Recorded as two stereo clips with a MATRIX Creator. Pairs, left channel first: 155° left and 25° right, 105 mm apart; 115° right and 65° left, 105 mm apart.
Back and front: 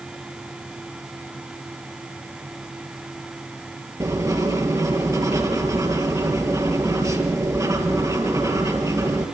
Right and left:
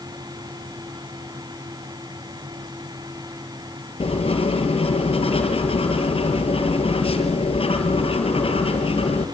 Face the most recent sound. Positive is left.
turn(degrees=-80)